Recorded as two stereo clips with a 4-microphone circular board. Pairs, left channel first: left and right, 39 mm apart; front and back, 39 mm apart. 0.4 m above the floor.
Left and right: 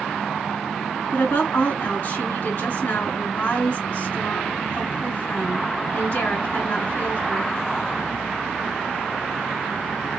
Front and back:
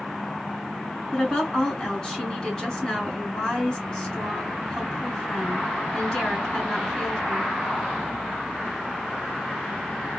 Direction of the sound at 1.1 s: 65° left.